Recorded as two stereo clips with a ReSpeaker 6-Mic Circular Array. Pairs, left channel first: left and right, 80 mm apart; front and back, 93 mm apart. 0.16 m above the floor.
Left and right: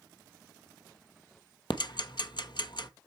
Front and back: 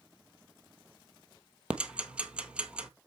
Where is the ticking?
105° left, 0.7 m.